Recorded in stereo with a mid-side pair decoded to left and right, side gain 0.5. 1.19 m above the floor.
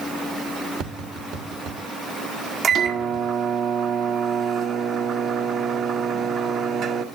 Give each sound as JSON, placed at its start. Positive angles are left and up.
{"t": 0.8, "sound": "tapping", "azimuth_deg": -65, "distance_m": 2.5}
{"t": 2.6, "sound": "a microwave", "azimuth_deg": -45, "distance_m": 1.8}